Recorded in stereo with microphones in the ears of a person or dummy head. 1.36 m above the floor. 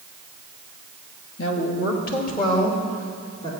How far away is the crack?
I don't hear a crack.